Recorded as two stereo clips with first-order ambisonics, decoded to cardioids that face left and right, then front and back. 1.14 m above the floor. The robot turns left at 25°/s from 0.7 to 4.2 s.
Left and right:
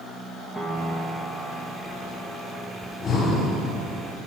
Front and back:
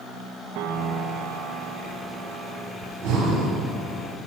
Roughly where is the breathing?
Behind left.